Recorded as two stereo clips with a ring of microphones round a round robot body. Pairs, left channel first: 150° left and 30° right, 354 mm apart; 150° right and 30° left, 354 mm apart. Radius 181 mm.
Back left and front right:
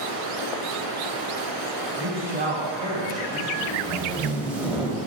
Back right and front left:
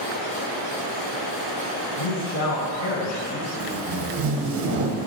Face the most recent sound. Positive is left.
turn(degrees=55)